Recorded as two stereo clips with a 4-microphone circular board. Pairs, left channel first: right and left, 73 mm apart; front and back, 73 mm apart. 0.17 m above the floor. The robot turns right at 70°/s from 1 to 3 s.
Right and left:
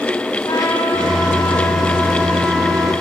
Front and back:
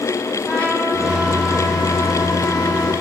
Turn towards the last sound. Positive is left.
turn(degrees=70)